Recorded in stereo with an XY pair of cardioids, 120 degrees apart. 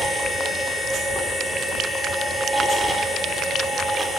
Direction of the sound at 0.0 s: 10° right.